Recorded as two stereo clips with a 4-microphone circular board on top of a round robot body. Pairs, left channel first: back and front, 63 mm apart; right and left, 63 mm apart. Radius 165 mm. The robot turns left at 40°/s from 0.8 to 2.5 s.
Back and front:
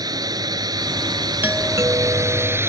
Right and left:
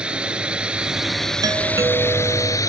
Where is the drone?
15° left; by 2.7 s 55° right.